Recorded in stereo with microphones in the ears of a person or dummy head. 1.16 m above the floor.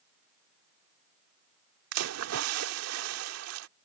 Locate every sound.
1.9 s a splash: 85° right